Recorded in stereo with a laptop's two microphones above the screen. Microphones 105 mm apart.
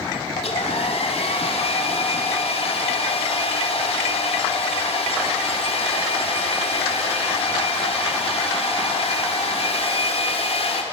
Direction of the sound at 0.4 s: 75° left (ahead or behind).